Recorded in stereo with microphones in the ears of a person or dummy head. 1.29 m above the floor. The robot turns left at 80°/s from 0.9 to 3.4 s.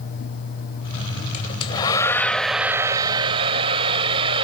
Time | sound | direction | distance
1.3 | a hair dryer | 30° left (ahead or behind) | ?